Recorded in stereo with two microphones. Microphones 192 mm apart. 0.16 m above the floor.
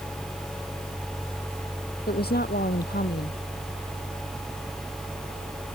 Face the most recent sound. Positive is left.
turn(degrees=55)  # may be behind; listen again after turning